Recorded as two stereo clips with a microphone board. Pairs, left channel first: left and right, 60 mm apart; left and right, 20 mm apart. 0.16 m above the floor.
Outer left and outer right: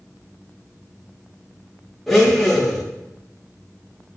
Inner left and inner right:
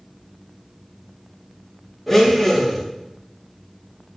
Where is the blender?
Centre (ahead or behind), 7.5 m.